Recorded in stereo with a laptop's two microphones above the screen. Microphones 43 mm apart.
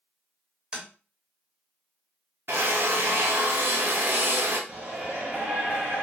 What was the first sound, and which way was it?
Tapping, 20° right (ahead or behind).